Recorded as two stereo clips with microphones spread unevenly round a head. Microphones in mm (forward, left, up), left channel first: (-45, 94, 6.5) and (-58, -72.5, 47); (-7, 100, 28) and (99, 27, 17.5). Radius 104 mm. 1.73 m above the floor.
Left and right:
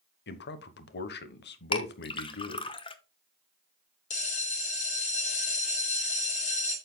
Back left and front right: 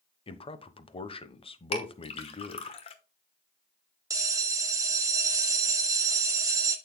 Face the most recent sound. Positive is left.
turn(degrees=25)